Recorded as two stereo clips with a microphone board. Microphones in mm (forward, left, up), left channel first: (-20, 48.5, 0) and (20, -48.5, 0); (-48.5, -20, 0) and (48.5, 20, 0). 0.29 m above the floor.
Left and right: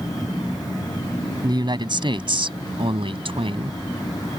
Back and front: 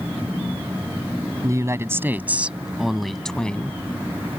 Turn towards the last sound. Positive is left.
turn(degrees=-85)